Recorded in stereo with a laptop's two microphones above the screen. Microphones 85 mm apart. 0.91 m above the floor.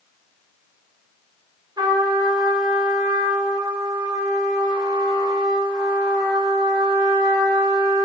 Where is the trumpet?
50° right (ahead or behind), 2 m.